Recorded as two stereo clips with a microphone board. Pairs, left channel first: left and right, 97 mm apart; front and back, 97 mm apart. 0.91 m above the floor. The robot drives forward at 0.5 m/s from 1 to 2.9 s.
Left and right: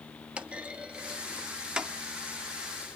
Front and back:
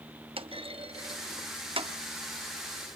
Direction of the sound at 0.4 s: 165° right.